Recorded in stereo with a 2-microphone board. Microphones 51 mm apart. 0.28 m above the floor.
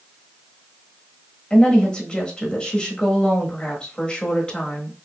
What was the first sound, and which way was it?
A woman speaking, 20° left (ahead or behind).